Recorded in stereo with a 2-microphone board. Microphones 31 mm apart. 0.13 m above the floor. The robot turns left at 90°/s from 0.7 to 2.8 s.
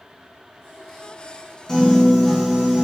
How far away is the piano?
About 1.1 m.